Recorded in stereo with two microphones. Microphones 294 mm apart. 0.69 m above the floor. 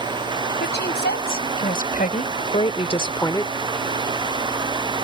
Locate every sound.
0.6 s a woman speaking: 35° left (ahead or behind); by 3.5 s 5° left (ahead or behind)